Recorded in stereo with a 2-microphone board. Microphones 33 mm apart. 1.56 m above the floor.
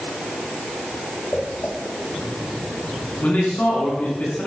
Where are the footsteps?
60° left (ahead or behind), 4 m; by 4.0 s centre (ahead or behind), 2.5 m.